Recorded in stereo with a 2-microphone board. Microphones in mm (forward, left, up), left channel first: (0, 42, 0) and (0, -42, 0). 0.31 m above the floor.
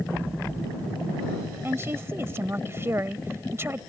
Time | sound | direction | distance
1.6 | a woman speaking | 30° right (ahead or behind) | ?